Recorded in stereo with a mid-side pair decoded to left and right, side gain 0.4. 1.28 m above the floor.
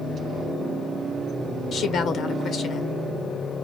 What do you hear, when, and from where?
1.7 s a woman speaking: 65° left, 1.3 m